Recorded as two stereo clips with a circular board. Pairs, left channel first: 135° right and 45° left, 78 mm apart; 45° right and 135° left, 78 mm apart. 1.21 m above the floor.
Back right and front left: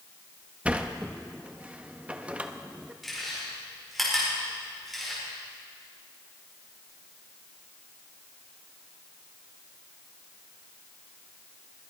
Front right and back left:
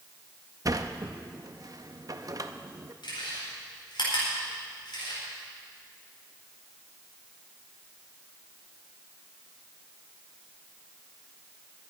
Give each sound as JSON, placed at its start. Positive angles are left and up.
{"t": 0.7, "sound": "a sliding door", "azimuth_deg": 115, "distance_m": 0.7}
{"t": 3.0, "sound": "chewing", "azimuth_deg": -45, "distance_m": 5.0}